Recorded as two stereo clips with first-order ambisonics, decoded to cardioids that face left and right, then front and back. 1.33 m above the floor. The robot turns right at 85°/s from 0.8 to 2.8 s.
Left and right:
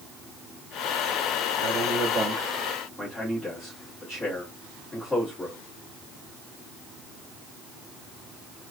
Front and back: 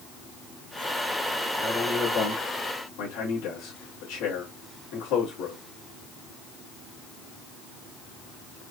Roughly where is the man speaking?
Right.